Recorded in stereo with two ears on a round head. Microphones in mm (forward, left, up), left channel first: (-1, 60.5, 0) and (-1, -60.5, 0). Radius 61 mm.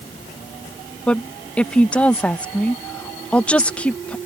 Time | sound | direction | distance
1.1 | a woman speaking | 10° left (ahead or behind) | ?